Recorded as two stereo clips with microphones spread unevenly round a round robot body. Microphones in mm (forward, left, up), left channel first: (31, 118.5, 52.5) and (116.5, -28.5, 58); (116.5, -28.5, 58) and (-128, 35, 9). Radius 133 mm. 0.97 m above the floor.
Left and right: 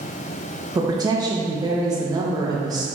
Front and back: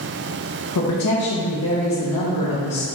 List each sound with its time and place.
0.8 s a woman speaking: 10° left, 1.0 m